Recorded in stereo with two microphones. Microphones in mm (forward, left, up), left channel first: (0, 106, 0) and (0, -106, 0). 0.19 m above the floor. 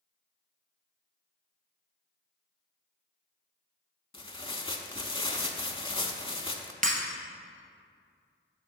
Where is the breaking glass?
40° right (ahead or behind), 1.2 m.